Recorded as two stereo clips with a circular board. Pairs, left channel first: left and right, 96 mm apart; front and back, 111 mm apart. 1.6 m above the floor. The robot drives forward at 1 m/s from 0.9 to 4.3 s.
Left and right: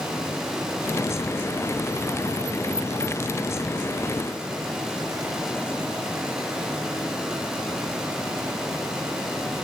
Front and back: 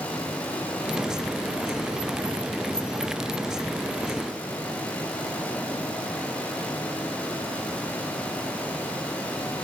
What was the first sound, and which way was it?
Only background noise.